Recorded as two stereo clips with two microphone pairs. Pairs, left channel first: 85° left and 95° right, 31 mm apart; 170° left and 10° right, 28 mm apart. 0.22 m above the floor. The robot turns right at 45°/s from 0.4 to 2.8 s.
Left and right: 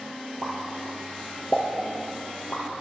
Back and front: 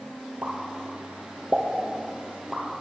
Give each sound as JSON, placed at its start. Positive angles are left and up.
{"t": 0.4, "sound": "a pop", "azimuth_deg": -35, "distance_m": 3.0}